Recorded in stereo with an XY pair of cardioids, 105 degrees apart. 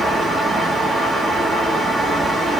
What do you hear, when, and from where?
0.0 s a fan: 30° right, 0.9 m